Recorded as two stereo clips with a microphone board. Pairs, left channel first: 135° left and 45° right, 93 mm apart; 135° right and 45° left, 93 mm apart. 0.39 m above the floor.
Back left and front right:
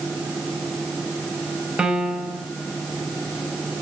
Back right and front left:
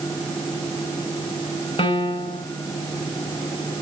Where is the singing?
I don't hear singing.